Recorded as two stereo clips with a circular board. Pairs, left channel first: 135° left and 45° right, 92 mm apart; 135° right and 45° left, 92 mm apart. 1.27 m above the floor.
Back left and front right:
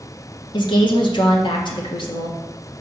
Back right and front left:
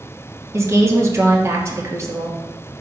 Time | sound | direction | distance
0.5 | a woman speaking | 105° left | 1.3 m